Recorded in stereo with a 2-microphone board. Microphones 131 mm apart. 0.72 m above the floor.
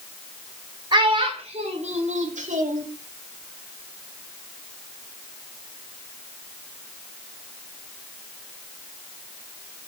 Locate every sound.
0.9 s a child speaking: 40° right (ahead or behind), 1.7 m; by 2.9 s 80° right, 1.5 m